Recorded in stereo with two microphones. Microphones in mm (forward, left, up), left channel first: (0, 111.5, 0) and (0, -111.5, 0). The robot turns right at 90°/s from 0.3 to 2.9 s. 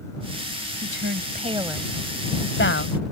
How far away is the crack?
I don't hear a crack.